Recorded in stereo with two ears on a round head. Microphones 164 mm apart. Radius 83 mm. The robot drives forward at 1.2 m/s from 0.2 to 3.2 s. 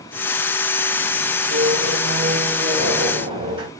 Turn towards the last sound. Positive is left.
turn(degrees=-30)  # may be behind; listen again after turning